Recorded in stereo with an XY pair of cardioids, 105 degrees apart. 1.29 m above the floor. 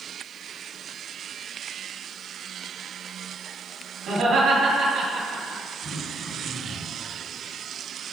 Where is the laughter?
70° right, 2.5 m.